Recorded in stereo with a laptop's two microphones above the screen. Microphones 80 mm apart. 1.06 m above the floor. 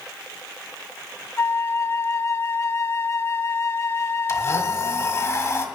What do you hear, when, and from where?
1.4 s a flute: 30° left (ahead or behind), 0.5 m
4.3 s a blender: 40° left (ahead or behind), 1.7 m